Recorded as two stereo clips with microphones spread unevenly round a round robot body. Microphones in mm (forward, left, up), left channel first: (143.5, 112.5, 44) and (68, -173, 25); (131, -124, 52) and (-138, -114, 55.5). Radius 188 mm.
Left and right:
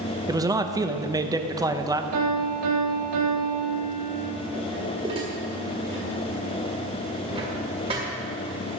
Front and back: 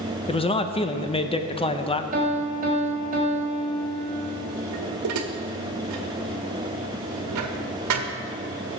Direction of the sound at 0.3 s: 45° right.